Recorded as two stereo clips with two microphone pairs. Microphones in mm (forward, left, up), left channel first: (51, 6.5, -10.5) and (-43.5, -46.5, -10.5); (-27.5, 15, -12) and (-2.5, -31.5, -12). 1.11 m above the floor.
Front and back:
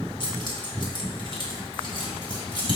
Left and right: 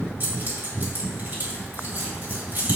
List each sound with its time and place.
0.2 s keys jangling: 10° right, 2 m